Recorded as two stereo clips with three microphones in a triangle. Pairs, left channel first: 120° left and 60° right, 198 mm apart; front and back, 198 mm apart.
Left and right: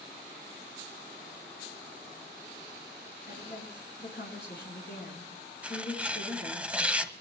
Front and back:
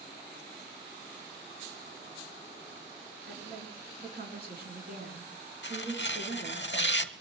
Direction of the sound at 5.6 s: 25° left.